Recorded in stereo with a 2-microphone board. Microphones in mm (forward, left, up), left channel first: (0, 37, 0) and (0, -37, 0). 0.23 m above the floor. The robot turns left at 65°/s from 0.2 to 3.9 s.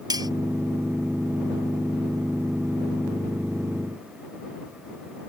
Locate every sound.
0.1 s cutlery clinking: 65° right (ahead or behind); by 0.3 s 70° right (ahead or behind)